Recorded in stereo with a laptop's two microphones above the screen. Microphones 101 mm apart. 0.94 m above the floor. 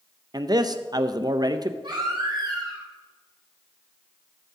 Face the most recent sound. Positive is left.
turn(degrees=-50)  # may be behind; listen again after turning